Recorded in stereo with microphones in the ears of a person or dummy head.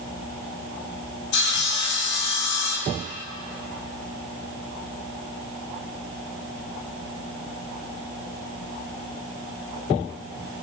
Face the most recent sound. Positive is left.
turn(degrees=70)  # may be behind; listen again after turning